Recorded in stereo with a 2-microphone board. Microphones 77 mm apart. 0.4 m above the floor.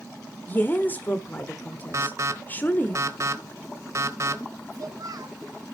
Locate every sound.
0.5 s a woman speaking: 25° left (ahead or behind), 1.0 m
1.9 s an alarm: 45° right (ahead or behind), 1.1 m
4.7 s a child speaking: 55° right (ahead or behind), 3 m